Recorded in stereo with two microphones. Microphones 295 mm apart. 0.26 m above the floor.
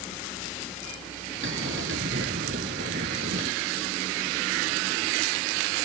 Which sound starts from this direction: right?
A bell, at 1.4 s.